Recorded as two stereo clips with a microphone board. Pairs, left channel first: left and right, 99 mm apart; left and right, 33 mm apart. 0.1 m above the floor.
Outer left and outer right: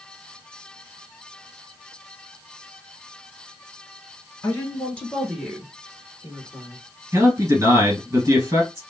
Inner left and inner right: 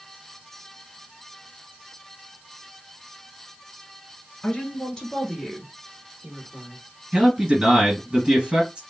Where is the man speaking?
35° right (ahead or behind), 1.9 m.